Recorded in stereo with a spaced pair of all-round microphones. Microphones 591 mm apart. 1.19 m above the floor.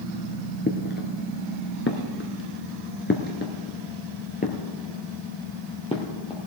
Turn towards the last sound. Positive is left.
turn(degrees=10)  # may be behind; listen again after turning